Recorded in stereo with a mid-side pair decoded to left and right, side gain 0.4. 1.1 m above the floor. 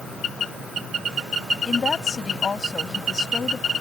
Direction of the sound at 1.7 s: 40° left.